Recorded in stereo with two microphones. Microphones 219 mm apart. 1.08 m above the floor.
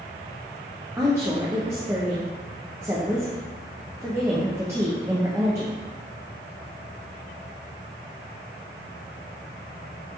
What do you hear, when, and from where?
1.0 s a woman speaking: 15° right (ahead or behind), 0.6 m